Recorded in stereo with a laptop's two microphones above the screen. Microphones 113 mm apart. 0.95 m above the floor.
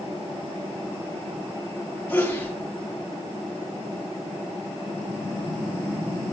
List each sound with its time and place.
2.1 s a sneeze: 15° left (ahead or behind), 7.5 m